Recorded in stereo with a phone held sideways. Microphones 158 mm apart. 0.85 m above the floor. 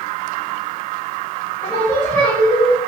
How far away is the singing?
About 2.5 m.